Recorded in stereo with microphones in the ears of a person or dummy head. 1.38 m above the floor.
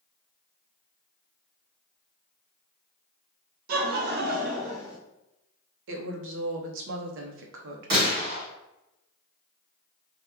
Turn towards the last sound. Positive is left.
turn(degrees=-60)  # may be behind; listen again after turning